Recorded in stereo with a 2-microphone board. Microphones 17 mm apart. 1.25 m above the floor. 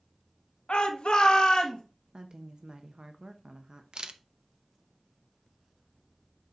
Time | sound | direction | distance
0.7 | a shout | 70° left (ahead or behind) | 1.3 m
2.1 | a woman speaking | 55° right (ahead or behind) | 0.6 m
3.9 | a camera shutter | 60° right (ahead or behind) | 0.6 m